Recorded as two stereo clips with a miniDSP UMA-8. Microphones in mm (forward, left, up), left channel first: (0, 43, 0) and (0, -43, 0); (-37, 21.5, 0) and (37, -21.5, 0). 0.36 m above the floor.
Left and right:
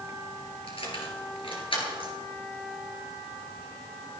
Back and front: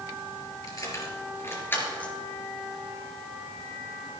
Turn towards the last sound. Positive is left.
turn(degrees=75)